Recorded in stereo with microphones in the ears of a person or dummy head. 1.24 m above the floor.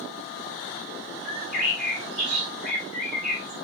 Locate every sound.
1.2 s a bird: 55° left (ahead or behind), 3.5 m